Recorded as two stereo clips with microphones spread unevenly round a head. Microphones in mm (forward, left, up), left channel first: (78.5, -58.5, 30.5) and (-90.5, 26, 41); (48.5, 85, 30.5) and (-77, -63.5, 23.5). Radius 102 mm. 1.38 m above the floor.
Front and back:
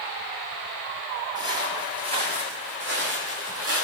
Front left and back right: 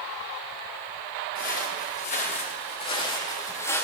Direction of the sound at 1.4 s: 85° left.